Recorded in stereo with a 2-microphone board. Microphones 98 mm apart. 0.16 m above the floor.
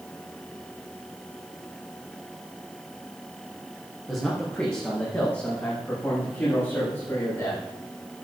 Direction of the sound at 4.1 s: 10° left (ahead or behind).